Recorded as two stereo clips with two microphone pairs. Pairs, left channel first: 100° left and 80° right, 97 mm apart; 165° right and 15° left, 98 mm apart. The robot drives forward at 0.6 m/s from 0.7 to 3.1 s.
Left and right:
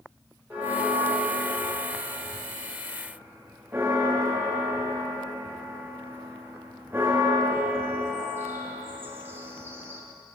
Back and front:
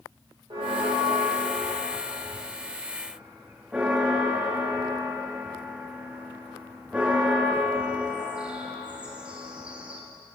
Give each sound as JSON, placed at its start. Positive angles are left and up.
{"t": 0.5, "sound": "a bell", "azimuth_deg": -10, "distance_m": 1.8}